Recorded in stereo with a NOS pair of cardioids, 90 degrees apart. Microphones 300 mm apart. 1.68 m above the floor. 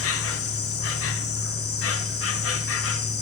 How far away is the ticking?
No ticking in this recording.